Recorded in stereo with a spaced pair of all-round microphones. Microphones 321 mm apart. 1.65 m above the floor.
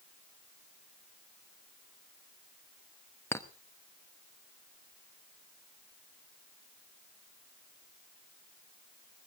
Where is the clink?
10° left (ahead or behind), 1.0 m.